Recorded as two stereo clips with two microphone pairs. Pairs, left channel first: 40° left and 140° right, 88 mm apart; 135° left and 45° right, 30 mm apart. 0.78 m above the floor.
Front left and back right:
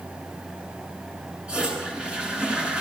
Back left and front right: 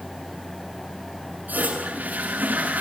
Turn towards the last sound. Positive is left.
turn(degrees=-60)